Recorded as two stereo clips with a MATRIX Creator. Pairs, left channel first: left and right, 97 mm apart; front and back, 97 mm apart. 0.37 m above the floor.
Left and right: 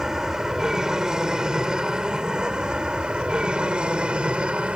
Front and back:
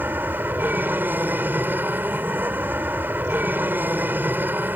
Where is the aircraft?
165° right; by 4.8 s 150° right.